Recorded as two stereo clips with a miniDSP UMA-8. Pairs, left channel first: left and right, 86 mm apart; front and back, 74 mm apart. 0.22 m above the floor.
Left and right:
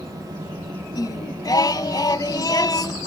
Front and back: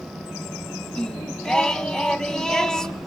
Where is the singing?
80° left, 0.6 m.